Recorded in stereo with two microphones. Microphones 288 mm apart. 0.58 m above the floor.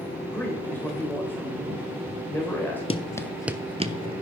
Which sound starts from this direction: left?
Running footsteps, at 2.9 s.